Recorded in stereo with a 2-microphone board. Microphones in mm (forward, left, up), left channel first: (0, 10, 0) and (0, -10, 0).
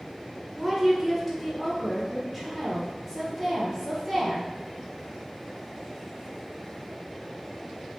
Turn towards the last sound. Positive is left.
turn(degrees=-5)  # may be behind; listen again after turning